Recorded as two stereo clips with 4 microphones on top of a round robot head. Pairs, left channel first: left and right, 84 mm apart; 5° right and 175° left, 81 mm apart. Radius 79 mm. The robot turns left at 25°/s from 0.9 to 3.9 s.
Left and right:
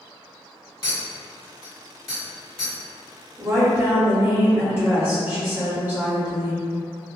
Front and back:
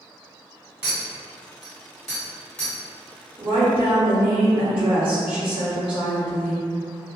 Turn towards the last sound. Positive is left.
turn(degrees=-150)